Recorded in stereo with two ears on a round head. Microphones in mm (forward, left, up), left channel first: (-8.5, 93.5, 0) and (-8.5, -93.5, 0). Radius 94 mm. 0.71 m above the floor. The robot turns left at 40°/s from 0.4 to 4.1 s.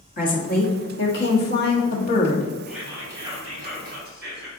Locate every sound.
0.2 s a woman speaking: 120° left, 1.2 m; by 2.5 s 40° left, 1.2 m
2.7 s whispering: straight ahead, 1.4 m; by 4.5 s 60° right, 1.4 m